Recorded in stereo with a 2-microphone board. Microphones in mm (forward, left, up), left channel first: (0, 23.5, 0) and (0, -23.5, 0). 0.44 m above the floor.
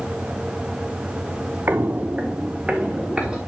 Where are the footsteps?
45° right (ahead or behind), 0.5 m; by 3.4 s 15° right (ahead or behind), 2.5 m.